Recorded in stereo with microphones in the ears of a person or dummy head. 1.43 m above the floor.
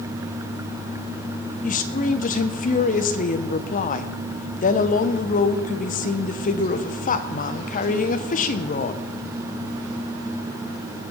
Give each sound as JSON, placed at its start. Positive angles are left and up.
{"t": 1.6, "sound": "a woman speaking", "side_deg": 45, "distance_m": 1.0}